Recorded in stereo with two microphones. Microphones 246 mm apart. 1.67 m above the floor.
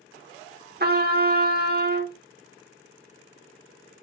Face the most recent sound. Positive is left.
turn(degrees=-45)  # may be behind; listen again after turning